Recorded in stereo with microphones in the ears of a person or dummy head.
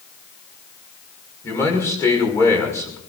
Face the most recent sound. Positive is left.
turn(degrees=20)  # may be behind; listen again after turning